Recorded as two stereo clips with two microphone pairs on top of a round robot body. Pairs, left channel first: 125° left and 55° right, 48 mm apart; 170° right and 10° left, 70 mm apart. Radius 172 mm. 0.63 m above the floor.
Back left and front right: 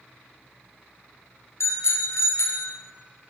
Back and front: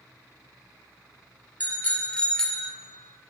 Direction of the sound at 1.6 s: 120° left.